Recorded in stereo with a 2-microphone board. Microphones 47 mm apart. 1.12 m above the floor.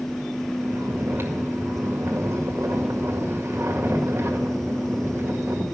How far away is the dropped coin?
No dropped coin in this recording.